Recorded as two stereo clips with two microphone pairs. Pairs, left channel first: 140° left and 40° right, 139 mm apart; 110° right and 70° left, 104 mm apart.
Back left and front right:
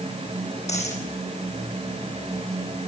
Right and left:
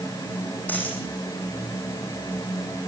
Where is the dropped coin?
175° left, 7.5 m.